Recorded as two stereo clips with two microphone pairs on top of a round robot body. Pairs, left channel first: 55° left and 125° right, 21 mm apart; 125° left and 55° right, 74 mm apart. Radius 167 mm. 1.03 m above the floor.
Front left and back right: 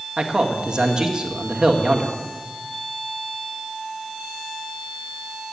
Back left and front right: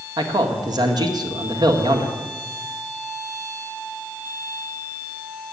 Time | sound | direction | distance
0.2 | a man speaking | 75° right | 1.8 m